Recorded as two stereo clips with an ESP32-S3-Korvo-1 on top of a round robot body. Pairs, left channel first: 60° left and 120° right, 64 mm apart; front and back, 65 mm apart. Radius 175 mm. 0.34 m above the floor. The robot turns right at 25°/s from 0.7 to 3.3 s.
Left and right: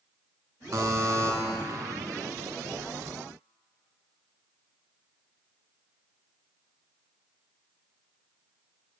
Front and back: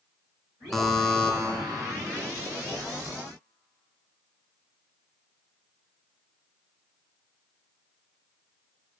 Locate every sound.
0.7 s a buzzer: 85° right, 0.9 m; by 1.3 s 70° right, 0.9 m